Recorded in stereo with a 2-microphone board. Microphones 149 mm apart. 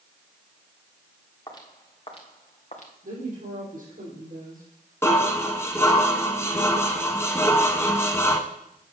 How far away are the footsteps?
About 2.5 m.